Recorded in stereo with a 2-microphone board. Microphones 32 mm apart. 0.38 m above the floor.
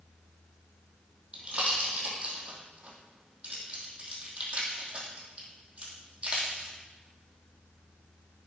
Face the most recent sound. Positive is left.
turn(degrees=-35)  # may be behind; listen again after turning